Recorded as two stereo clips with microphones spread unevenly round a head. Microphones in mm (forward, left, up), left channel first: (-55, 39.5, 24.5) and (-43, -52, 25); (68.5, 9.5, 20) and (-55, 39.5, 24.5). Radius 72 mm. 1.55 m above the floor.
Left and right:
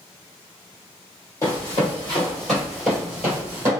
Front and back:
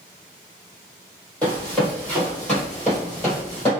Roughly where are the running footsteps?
Ahead left.